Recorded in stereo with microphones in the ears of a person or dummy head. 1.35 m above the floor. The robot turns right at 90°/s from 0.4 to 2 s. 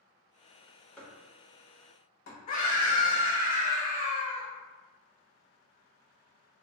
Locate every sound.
1.0 s chopping: 10° left (ahead or behind), 1.2 m; by 2.4 s 65° left (ahead or behind), 1.2 m
2.5 s a scream: 35° left (ahead or behind), 0.7 m